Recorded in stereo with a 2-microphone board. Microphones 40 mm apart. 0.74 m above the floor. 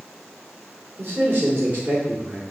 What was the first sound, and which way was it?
A man speaking, 65° right (ahead or behind).